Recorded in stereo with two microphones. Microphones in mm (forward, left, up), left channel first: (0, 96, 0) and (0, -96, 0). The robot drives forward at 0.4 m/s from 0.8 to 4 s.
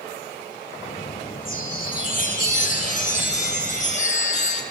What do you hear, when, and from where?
1.4 s a chime: 50° left (ahead or behind), 3.5 m; by 4.6 s 40° left (ahead or behind), 4.5 m